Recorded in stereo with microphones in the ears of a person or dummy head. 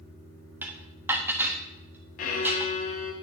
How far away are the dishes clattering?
About 1.2 m.